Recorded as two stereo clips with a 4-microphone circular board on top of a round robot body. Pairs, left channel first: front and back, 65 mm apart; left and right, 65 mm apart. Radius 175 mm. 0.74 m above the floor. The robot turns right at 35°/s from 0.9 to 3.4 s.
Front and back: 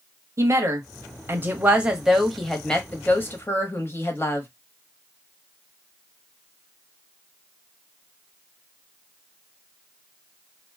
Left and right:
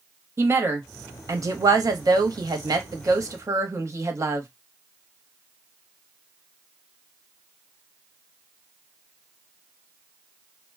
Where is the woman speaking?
140° right, 1.0 m; by 4.5 s 50° right, 1.0 m.